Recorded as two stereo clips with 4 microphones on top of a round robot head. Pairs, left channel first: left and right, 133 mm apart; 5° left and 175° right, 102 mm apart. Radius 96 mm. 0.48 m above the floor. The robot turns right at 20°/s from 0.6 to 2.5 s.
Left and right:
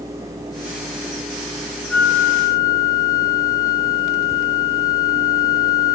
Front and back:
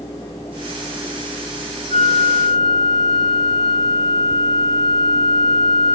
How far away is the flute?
About 1.7 m.